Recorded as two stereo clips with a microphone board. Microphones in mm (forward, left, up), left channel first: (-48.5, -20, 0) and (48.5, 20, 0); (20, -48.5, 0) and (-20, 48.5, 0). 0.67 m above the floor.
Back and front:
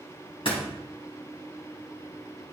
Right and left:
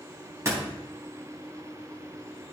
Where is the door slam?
175° left, 3 m.